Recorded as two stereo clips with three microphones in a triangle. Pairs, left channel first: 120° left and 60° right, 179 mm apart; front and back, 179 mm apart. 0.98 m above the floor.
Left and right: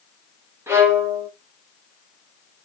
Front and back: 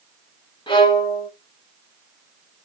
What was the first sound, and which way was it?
A violin, 5° right.